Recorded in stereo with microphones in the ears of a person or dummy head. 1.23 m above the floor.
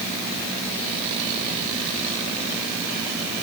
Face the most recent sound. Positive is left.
No sound to turn to.